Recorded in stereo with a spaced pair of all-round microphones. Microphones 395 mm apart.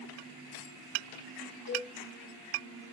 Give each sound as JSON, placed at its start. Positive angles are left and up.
{"t": 1.7, "sound": "a cowbell", "side_deg": 55, "distance_m": 2.5}